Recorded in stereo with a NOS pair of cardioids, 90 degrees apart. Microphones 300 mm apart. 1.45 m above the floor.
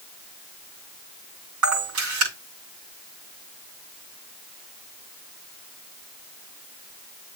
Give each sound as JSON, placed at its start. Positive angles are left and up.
{"t": 1.6, "sound": "a camera shutter", "azimuth_deg": -70, "distance_m": 6.5}